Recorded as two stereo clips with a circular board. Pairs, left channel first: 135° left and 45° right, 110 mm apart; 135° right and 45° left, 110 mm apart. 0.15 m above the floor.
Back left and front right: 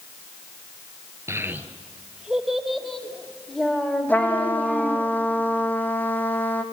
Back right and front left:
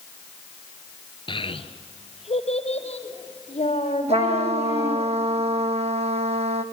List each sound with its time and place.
1.3 s a child speaking: 105° right, 1.7 m; by 5.0 s 145° right, 6.5 m
4.1 s a trumpet: 60° left, 1.7 m